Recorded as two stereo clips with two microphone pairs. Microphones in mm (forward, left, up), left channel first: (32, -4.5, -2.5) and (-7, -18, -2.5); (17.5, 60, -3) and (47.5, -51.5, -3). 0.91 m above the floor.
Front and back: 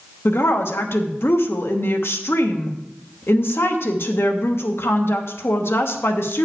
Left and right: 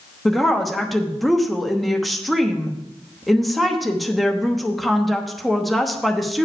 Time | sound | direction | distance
0.2 | a woman speaking | 15° left | 1.1 m